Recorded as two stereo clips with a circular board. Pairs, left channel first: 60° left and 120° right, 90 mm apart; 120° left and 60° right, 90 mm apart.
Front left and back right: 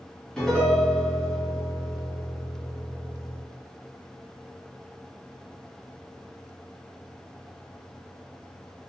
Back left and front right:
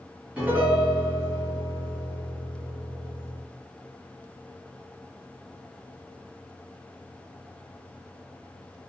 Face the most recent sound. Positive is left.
turn(degrees=-10)